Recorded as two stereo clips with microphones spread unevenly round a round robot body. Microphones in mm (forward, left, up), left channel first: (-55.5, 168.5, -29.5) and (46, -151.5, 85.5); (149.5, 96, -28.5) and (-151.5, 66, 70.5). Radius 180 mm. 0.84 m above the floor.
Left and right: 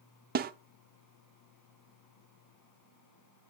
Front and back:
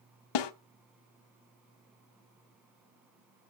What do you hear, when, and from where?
0.3 s a snare drum: 15° right, 0.7 m